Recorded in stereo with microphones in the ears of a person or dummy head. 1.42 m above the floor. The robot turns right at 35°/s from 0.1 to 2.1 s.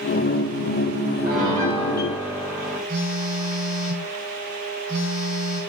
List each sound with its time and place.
1.2 s a piano: 55° right (ahead or behind), 3.5 m; by 2.8 s 25° right (ahead or behind), 3.5 m
2.9 s a phone buzzing: 20° right (ahead or behind), 4.5 m